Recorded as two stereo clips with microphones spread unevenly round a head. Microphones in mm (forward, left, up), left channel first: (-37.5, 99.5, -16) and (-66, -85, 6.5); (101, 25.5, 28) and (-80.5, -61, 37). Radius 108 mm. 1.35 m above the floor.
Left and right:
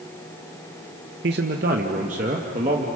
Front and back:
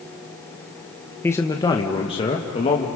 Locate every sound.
1.2 s a man speaking: 55° right, 1.0 m; by 2.9 s 35° right, 1.9 m